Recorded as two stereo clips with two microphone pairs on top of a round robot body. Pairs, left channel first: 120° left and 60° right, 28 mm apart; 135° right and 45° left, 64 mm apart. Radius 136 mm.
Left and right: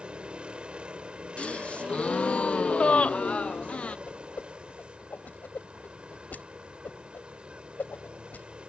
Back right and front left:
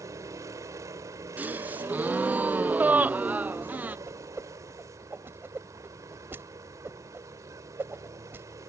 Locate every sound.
0.0 s a vehicle: straight ahead
1.4 s a gasp: 110° left
4.1 s a whoosh: 95° left